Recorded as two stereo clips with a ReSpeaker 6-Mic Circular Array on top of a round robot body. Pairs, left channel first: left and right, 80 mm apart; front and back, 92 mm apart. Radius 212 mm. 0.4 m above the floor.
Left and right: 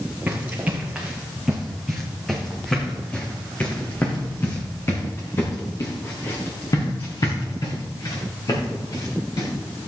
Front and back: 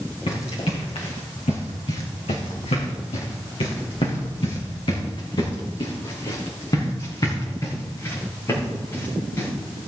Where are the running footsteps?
15° right, 3 m; by 9.5 s 60° left, 5 m.